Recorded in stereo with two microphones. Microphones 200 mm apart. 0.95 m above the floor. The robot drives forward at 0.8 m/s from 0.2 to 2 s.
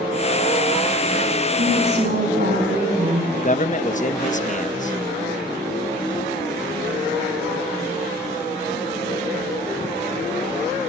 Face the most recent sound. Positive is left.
turn(degrees=40)  # may be behind; listen again after turning